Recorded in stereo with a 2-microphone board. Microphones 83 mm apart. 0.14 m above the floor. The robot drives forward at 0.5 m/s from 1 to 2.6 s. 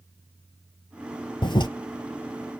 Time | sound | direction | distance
1.4 | a toilet flushing | 75° left (ahead or behind) | 0.6 m